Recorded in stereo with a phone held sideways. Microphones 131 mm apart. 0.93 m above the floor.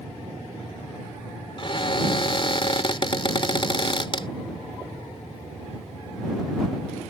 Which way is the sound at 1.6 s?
40° left (ahead or behind).